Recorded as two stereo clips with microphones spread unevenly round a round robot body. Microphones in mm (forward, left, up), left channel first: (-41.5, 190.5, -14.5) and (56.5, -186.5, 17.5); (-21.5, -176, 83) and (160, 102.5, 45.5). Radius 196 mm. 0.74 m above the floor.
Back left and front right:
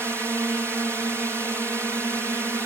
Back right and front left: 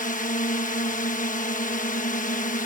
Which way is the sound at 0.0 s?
160° right.